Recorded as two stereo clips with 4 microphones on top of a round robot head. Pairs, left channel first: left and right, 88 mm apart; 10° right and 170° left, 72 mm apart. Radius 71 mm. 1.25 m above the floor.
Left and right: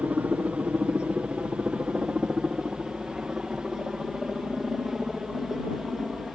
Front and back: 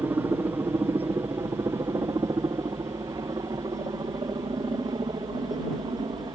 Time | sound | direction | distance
0.0 | a helicopter | 155° right | ?